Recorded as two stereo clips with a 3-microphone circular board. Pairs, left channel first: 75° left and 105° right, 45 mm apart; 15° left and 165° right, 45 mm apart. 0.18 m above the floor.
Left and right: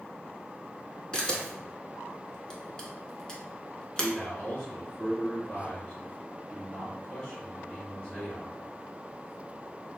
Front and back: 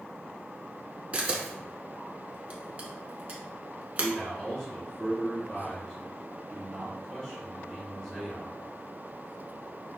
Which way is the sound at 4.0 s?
70° left.